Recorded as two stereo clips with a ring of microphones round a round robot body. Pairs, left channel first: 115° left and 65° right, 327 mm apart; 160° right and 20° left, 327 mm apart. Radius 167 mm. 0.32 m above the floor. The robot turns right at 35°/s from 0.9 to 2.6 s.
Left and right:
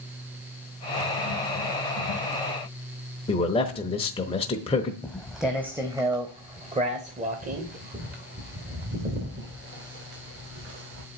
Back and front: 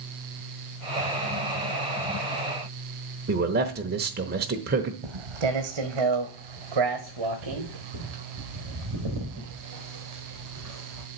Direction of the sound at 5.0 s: 25° left.